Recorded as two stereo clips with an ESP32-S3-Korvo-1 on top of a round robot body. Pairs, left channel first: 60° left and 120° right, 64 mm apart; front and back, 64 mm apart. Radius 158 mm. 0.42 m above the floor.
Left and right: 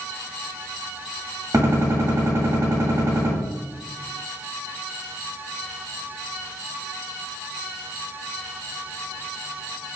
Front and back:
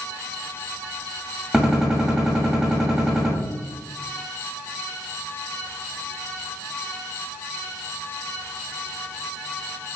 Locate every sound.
1.5 s a gunshot: 100° right, 1.4 m